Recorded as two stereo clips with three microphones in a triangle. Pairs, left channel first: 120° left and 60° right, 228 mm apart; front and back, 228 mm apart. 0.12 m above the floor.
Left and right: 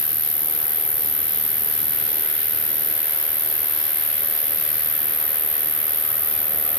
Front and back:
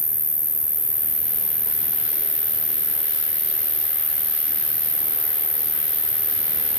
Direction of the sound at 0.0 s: 175° right.